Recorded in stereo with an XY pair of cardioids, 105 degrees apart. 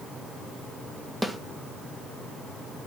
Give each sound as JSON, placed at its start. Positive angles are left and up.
{"t": 1.2, "sound": "a snare drum", "azimuth_deg": -5, "distance_m": 1.4}